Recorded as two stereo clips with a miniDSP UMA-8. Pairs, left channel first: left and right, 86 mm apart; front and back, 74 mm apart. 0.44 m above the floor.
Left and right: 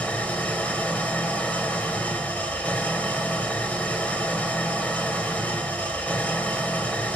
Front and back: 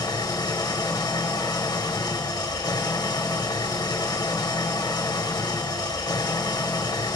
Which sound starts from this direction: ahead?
An engine running, at 0.0 s.